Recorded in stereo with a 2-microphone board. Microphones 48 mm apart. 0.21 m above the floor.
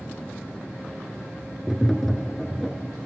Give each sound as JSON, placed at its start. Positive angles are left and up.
{"t": 1.7, "sound": "tapping", "side_deg": 5, "distance_m": 1.1}